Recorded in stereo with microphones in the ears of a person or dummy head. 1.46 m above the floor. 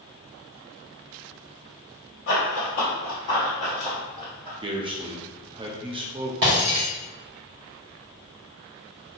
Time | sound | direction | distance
2.3 | running footsteps | 40° left (ahead or behind) | 1.9 m
4.6 | a man speaking | 25° right (ahead or behind) | 0.5 m
6.4 | breaking glass | 25° right (ahead or behind) | 1.1 m